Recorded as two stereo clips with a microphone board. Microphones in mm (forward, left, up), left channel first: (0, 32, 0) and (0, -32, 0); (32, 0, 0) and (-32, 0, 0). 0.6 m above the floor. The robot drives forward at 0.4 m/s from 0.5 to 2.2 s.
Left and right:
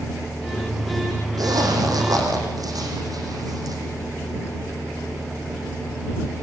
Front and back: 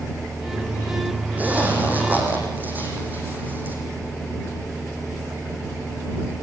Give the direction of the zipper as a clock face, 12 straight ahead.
4 o'clock.